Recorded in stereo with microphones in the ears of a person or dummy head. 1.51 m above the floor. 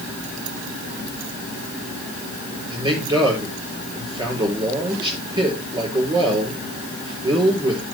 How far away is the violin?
No violin in this recording.